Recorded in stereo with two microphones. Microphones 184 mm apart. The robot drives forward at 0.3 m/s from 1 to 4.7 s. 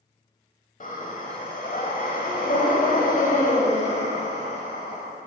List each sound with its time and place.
0.8 s breathing: 45° left (ahead or behind), 0.9 m; by 5.0 s 35° left (ahead or behind), 1.2 m